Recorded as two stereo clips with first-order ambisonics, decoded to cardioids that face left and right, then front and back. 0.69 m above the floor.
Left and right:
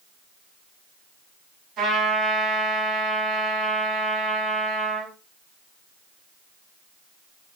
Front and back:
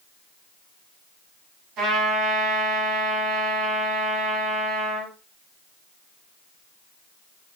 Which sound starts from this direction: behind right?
A trumpet, at 1.8 s.